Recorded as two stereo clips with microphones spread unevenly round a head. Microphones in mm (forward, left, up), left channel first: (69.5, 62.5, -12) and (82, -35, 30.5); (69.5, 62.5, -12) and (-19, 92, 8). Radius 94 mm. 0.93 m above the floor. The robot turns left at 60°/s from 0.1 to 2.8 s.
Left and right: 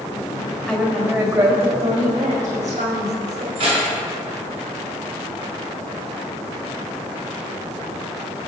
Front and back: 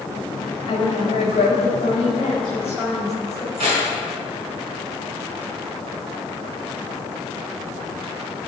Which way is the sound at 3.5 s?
145° right.